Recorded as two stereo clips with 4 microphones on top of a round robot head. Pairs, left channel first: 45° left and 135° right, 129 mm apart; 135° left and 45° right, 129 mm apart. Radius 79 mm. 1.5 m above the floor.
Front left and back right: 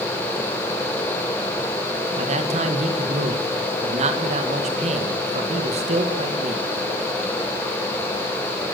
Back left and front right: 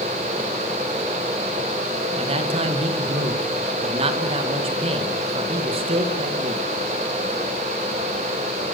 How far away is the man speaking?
About 2 m.